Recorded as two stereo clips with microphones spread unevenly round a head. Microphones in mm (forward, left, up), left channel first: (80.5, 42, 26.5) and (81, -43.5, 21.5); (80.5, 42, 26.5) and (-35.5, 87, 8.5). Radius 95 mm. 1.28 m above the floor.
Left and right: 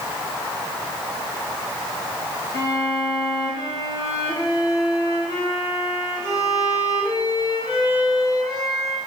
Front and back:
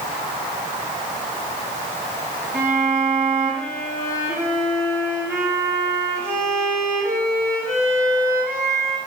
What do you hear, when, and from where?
2.5 s a violin: 125° right, 4 m